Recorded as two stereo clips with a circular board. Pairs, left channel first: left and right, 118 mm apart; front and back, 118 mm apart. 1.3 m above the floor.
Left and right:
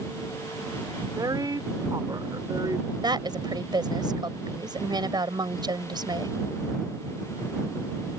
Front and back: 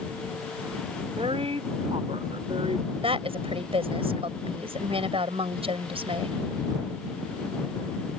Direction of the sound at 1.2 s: 145° right.